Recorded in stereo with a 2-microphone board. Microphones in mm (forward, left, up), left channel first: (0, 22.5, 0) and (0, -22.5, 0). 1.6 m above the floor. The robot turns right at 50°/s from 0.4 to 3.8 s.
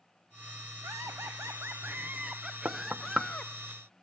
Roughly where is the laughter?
Right.